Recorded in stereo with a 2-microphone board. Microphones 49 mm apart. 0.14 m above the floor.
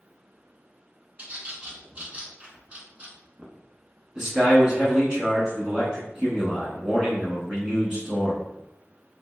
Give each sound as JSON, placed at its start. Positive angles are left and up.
{"t": 1.2, "sound": "a bird", "side_deg": -30, "distance_m": 0.6}
{"t": 4.2, "sound": "a man speaking", "side_deg": -15, "distance_m": 1.0}